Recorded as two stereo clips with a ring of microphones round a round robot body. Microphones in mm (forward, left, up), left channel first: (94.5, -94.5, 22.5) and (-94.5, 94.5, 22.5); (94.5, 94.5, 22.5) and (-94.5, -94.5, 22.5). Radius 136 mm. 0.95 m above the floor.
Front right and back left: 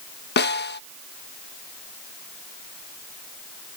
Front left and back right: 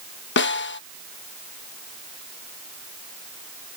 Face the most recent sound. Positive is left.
turn(degrees=0)